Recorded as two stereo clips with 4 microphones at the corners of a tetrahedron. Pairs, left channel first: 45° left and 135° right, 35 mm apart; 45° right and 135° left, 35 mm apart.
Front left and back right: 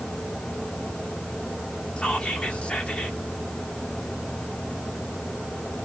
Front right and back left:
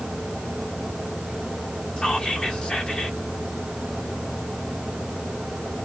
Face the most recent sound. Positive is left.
turn(degrees=0)